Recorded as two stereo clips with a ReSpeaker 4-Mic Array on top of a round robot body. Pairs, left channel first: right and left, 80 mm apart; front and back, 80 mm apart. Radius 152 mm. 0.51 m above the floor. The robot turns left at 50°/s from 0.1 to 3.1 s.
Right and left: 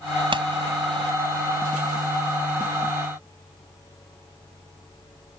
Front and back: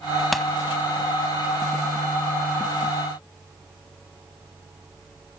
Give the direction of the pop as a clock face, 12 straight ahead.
9 o'clock.